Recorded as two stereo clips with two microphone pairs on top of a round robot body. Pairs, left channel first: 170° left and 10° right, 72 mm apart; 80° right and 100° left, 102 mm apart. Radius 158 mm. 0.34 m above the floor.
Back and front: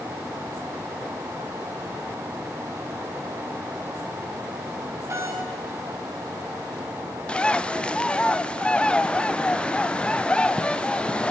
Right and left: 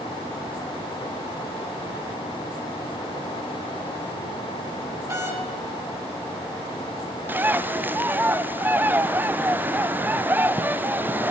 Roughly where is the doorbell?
Ahead left.